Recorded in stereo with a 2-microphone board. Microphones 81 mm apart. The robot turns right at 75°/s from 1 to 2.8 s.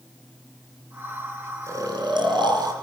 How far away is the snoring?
About 3 m.